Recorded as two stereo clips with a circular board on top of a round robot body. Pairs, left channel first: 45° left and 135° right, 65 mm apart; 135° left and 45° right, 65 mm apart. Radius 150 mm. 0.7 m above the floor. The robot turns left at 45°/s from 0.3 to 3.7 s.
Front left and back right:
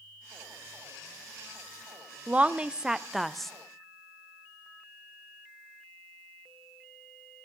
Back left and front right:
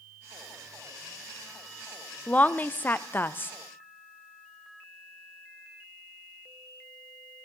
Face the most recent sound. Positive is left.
turn(degrees=115)